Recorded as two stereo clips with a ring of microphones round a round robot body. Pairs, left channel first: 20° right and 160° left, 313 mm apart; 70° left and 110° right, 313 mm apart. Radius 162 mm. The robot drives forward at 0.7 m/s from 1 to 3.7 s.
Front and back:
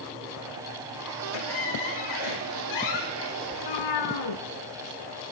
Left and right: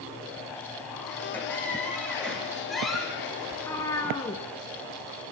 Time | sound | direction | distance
1.3 | a squeak | 15° right | 4.5 m
3.5 | a cat meowing | 15° right | 2.5 m